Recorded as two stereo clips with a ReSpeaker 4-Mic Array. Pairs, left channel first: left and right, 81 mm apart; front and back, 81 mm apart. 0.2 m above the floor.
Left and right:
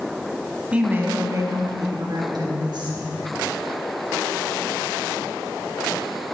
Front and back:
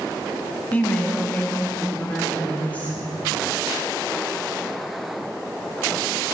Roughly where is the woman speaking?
Ahead right.